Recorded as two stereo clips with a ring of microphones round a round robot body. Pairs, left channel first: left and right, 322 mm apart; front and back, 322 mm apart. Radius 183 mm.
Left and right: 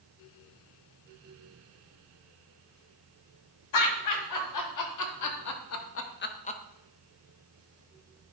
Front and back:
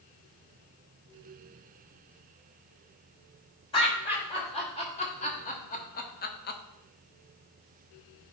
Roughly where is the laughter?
Left.